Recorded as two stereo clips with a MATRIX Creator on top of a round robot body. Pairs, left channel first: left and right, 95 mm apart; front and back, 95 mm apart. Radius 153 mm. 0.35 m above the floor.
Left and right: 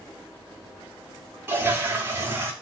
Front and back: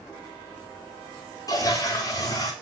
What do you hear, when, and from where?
1.5 s a toilet flushing: 35° right, 0.9 m